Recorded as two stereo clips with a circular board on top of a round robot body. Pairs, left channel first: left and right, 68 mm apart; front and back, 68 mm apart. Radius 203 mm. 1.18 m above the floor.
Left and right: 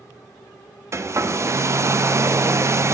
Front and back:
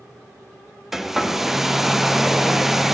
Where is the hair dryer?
100° right, 0.7 m.